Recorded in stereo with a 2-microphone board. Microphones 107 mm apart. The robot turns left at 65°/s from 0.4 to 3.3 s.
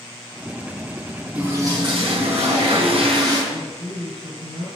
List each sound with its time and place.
1.4 s a toilet flushing: 15° right, 4.5 m; by 3.4 s 140° right, 4.5 m
3.5 s a woman speaking: 60° right (ahead or behind), 7 m